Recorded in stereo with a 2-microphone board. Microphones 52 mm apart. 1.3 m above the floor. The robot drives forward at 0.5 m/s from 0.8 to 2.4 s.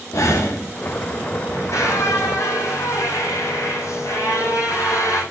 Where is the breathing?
80° left, 3.5 m.